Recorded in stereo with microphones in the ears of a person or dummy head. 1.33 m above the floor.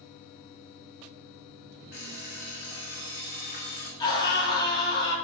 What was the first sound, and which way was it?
An alarm clock, 60° left (ahead or behind).